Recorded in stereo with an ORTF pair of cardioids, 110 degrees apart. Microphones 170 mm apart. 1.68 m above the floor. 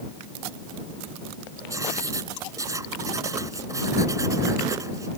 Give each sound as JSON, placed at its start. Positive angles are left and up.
{"t": 1.7, "sound": "writing", "azimuth_deg": -20}